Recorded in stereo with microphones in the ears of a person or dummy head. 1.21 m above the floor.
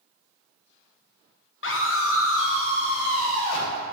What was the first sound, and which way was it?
A scream, 60° left (ahead or behind).